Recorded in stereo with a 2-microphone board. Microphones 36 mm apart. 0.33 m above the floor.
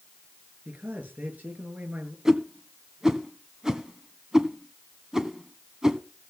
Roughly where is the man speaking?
Right.